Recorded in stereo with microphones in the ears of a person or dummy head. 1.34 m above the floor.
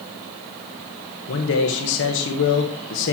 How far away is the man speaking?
About 1.6 m.